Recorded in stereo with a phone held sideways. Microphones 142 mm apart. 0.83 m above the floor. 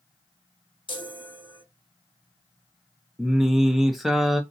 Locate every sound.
0.9 s a chime: 35° left (ahead or behind), 0.8 m
3.2 s singing: centre (ahead or behind), 0.6 m